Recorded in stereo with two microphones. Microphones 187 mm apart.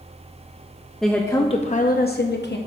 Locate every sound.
1.0 s a woman speaking: centre (ahead or behind), 0.5 m; by 2.6 s 65° left (ahead or behind), 0.8 m